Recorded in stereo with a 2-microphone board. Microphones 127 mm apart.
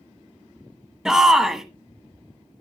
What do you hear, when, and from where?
1.1 s a shout: 5° right (ahead or behind), 1.3 m